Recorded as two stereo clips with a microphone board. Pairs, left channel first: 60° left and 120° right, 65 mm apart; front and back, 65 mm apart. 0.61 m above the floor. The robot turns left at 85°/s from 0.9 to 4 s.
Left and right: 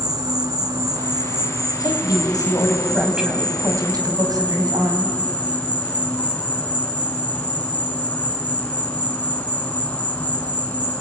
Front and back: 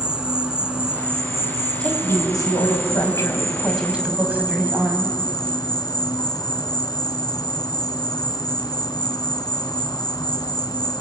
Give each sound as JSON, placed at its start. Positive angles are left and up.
{"t": 0.0, "sound": "an insect", "azimuth_deg": -100, "distance_m": 3.0}
{"t": 1.8, "sound": "a woman speaking", "azimuth_deg": 75, "distance_m": 4.0}